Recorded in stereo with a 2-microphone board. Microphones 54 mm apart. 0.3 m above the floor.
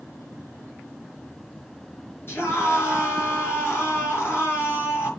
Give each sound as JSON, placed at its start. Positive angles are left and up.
{"t": 2.3, "sound": "a scream", "side_deg": 45, "distance_m": 5.0}